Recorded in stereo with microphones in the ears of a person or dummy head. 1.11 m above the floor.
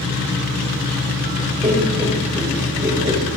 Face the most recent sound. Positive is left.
turn(degrees=-20)  # may be behind; listen again after turning